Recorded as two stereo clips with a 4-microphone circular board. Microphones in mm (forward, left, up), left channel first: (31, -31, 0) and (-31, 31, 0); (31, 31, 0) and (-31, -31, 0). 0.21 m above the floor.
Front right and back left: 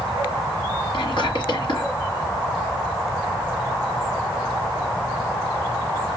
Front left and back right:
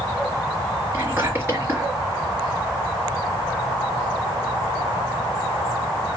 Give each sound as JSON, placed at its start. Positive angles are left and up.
{"t": 0.9, "sound": "whispering", "azimuth_deg": -70, "distance_m": 4.5}